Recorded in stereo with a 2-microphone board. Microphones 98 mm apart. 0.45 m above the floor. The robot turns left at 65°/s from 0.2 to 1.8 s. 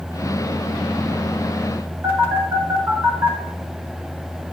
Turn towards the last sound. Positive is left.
turn(degrees=-20)  # may be behind; listen again after turning